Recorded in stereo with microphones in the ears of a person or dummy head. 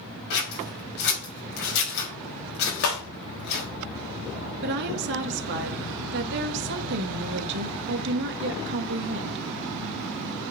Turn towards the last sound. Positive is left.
turn(degrees=-60)  # may be behind; listen again after turning